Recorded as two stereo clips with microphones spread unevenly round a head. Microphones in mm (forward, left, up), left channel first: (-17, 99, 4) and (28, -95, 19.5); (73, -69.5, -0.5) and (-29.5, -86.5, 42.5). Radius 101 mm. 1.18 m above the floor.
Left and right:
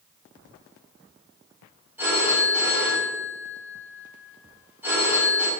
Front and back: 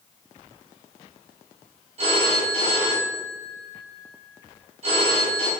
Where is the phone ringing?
160° right, 5 m.